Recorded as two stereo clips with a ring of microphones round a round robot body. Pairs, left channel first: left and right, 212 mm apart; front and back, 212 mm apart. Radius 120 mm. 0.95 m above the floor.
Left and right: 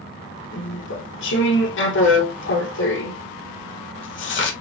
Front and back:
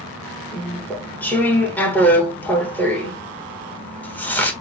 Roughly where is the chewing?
Left.